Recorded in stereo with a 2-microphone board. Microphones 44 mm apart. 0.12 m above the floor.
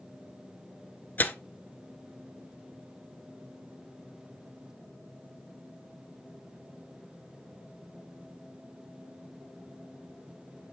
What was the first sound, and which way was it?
Tearing paper, 40° left (ahead or behind).